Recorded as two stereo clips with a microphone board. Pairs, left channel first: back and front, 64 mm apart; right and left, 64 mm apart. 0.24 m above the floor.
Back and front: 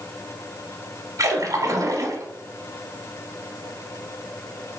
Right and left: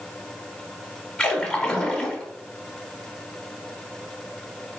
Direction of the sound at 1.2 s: 15° right.